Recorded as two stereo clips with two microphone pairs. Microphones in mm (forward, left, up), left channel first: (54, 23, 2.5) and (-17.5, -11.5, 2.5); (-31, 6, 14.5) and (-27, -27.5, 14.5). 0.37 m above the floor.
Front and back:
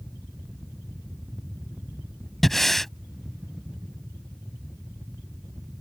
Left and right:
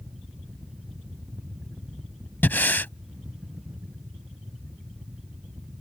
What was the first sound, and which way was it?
Breathing, 110° left.